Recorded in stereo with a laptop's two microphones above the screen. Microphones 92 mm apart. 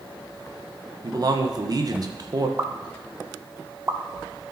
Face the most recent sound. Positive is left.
turn(degrees=-30)  # may be behind; listen again after turning